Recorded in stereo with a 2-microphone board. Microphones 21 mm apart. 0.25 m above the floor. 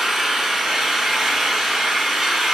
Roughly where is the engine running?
Centre.